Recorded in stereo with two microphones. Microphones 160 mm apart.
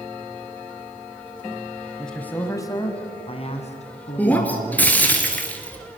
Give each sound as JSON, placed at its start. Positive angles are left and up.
{"t": 2.0, "sound": "a man speaking", "side_deg": 0, "distance_m": 1.5}
{"t": 4.2, "sound": "breaking glass", "side_deg": 10, "distance_m": 2.5}